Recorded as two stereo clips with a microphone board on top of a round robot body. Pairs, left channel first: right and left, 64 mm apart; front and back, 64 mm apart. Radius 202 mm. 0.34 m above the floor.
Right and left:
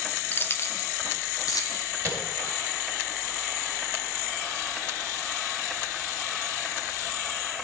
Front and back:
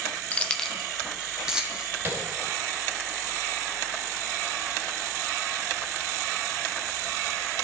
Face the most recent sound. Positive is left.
turn(degrees=130)